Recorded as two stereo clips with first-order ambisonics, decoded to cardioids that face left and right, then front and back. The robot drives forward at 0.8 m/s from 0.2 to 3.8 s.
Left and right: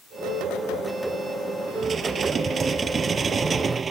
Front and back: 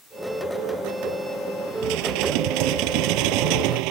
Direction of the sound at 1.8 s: 160° right.